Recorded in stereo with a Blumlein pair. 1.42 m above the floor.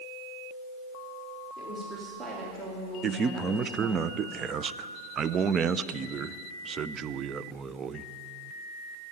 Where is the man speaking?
25° right, 0.5 m.